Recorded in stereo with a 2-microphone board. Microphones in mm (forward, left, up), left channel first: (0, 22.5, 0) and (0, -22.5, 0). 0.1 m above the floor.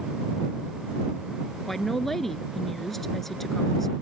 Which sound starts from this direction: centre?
A woman speaking, at 1.7 s.